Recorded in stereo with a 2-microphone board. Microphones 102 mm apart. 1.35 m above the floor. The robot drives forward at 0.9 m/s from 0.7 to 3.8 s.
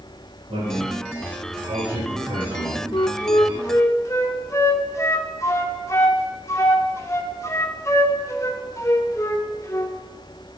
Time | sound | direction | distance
0.5 | a man speaking | 80° right | 5 m
2.9 | a flute | 45° left (ahead or behind) | 0.6 m